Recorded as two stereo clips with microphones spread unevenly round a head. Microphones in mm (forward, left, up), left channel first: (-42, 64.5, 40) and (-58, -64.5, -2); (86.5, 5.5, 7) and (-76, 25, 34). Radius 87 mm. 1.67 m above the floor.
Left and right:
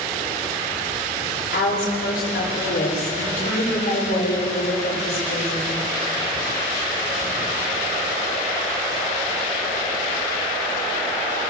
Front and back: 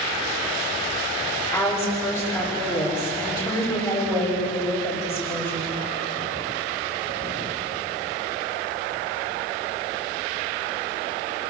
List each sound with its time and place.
1.5 s a woman speaking: 65° left, 9.5 m